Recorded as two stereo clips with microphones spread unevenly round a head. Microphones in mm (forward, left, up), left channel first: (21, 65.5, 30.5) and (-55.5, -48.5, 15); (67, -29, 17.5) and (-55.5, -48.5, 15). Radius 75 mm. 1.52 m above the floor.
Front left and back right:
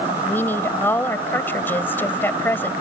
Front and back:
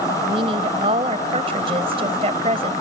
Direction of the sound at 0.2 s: 130° left.